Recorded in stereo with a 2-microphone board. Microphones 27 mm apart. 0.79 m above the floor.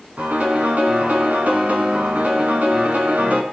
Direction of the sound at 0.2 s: 70° right (ahead or behind).